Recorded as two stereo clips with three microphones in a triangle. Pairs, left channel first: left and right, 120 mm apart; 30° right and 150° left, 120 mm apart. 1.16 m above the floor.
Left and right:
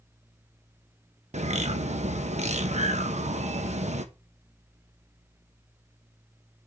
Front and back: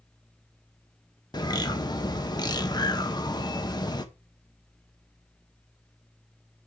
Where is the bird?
85° right, 1.1 m.